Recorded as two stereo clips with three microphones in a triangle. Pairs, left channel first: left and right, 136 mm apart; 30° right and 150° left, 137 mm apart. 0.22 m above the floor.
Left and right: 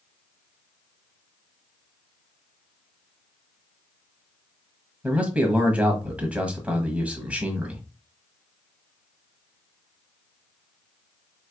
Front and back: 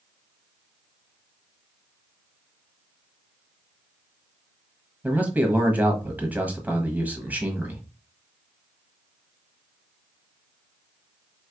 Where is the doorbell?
I don't hear a doorbell.